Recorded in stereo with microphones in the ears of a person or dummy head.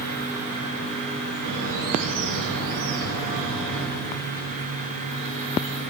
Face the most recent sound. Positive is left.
turn(degrees=-75)  # may be behind; listen again after turning